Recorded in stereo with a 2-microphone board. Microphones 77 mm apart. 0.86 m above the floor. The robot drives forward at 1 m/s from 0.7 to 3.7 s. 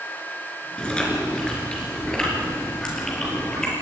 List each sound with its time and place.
0.8 s chewing: 15° left (ahead or behind), 4.5 m; by 3.7 s 10° left (ahead or behind), 7.5 m